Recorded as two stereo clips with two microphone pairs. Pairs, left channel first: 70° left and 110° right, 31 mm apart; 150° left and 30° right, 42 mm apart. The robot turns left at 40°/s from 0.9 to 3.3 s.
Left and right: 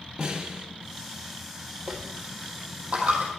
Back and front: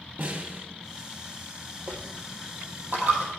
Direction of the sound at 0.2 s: 50° right.